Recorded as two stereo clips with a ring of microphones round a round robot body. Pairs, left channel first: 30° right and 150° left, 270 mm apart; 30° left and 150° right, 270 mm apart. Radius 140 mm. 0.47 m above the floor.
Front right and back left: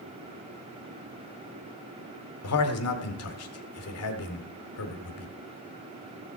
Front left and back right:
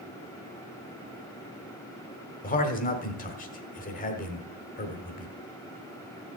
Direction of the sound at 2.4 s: 25° right.